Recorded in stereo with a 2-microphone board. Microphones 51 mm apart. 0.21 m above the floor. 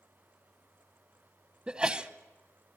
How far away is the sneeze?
About 1.0 m.